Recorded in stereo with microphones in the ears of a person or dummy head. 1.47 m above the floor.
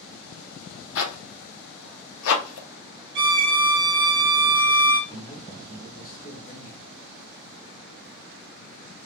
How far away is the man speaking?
About 1.6 m.